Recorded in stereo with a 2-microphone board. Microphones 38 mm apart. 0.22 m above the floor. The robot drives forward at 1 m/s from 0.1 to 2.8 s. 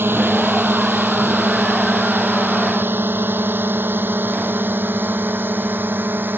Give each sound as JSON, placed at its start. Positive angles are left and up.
{"t": 0.0, "sound": "a drone", "side_deg": -80}